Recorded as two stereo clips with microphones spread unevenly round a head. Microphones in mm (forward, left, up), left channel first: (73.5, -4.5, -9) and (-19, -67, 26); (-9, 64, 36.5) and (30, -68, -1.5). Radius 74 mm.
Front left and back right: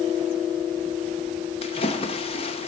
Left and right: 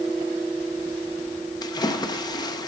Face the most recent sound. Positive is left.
turn(degrees=40)